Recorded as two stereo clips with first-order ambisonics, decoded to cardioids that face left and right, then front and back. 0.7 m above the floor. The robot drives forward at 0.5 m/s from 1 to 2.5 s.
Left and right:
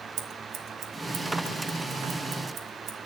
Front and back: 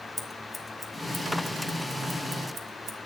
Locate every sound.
0.2 s scissors: 90° right, 1.1 m; by 3.0 s 135° right, 1.3 m